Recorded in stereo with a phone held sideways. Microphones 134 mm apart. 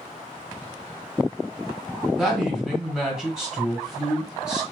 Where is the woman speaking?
Centre (ahead or behind), 1.4 m.